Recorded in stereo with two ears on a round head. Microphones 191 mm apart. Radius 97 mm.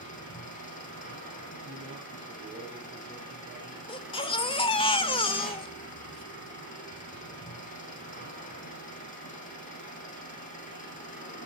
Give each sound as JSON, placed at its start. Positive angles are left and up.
{"t": 0.0, "sound": "an engine running", "side_deg": 40, "distance_m": 8.0}
{"t": 1.6, "sound": "a man speaking", "side_deg": -30, "distance_m": 8.5}
{"t": 3.9, "sound": "a baby crying", "side_deg": 25, "distance_m": 1.5}